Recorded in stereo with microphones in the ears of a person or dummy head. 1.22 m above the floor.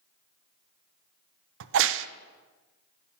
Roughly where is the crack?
Right.